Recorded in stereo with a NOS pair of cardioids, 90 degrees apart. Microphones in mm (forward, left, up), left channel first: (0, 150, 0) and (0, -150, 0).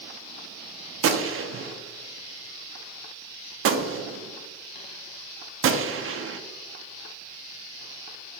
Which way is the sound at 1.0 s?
45° right.